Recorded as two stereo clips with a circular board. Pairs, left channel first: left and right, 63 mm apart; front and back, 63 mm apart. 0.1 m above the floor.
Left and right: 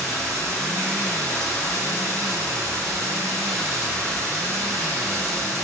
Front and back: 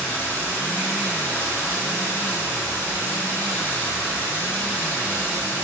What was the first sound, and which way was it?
Running water, 60° right.